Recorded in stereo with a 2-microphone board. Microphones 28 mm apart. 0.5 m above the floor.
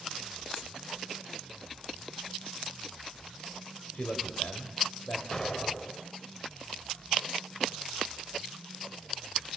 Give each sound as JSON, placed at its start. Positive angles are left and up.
{"t": 3.9, "sound": "a man speaking", "side_deg": 65, "distance_m": 2.5}
{"t": 5.3, "sound": "an explosion", "side_deg": 25, "distance_m": 0.8}